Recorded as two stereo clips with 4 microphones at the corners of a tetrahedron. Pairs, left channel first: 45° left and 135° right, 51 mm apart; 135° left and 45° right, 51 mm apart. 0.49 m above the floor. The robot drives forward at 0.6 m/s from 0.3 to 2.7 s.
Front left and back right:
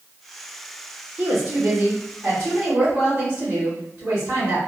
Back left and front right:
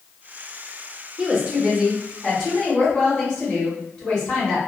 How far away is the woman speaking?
About 0.9 m.